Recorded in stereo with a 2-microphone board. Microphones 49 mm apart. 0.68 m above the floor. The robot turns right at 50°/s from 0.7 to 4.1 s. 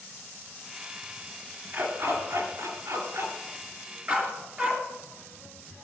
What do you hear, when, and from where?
1.7 s a dog barking: 30° right (ahead or behind), 2.5 m; by 4.8 s 35° right (ahead or behind), 2.5 m